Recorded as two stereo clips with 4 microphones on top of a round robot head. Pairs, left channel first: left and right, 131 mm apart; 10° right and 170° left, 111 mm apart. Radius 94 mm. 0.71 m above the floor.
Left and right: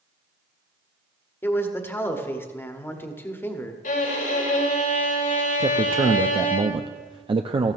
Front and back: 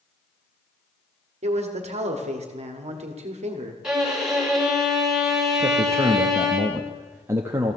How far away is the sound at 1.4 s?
About 1.5 m.